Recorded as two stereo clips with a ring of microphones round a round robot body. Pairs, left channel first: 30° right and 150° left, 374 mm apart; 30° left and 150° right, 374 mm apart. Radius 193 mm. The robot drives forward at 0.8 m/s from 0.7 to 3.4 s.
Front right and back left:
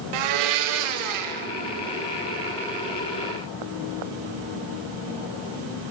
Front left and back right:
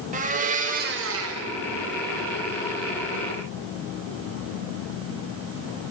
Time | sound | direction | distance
0.1 | a blender | 140° left | 0.7 m